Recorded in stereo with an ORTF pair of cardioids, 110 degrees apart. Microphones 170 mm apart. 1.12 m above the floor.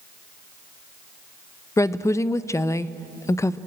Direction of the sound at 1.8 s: 15° left.